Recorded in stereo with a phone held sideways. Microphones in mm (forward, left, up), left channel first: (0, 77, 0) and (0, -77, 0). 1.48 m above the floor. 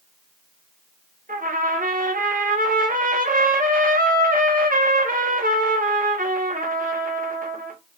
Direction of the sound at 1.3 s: 65° right (ahead or behind).